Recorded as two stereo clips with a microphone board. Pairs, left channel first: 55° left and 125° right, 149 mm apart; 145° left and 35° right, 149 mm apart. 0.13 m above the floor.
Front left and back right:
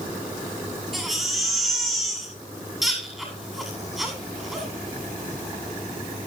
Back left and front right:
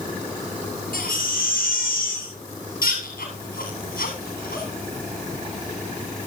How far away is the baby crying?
About 9 m.